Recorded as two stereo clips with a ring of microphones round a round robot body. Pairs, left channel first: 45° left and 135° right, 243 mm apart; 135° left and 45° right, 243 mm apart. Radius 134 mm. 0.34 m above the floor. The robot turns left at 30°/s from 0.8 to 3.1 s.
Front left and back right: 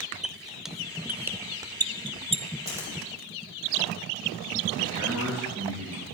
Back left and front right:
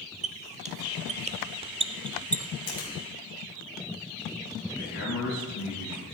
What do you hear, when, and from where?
0.2 s a squeak: 50° right, 0.6 m; by 2.4 s 100° right, 0.6 m
2.7 s a finger snap: 150° left, 6 m; by 2.9 s 140° left, 6 m
4.8 s a man speaking: 165° left, 6.5 m